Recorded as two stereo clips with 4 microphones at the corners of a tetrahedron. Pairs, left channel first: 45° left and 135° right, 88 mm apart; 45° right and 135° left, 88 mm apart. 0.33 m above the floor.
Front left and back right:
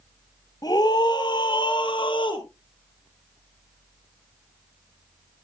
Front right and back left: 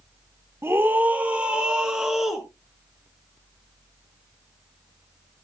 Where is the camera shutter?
I don't hear a camera shutter.